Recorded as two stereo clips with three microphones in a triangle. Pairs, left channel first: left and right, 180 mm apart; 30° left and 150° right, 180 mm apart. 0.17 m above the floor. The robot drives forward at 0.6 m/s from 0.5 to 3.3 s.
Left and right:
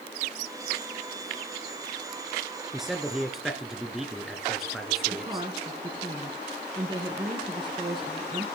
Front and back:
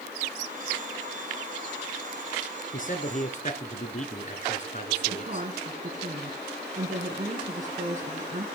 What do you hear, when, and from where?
2.7 s a man speaking: straight ahead, 2 m
5.1 s a woman speaking: 140° right, 1.9 m